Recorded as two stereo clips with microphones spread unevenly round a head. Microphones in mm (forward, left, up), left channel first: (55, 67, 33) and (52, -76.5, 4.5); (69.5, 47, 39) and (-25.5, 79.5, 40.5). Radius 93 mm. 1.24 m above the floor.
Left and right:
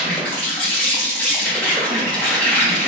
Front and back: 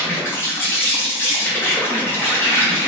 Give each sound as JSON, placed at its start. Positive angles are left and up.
{"t": 0.0, "sound": "an insect", "azimuth_deg": 35, "distance_m": 0.9}